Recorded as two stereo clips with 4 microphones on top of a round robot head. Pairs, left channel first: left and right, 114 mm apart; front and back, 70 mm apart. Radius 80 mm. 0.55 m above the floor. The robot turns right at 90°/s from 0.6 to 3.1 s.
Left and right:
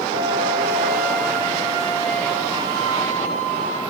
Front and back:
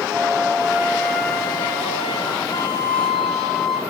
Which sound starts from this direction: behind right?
A flute, at 0.1 s.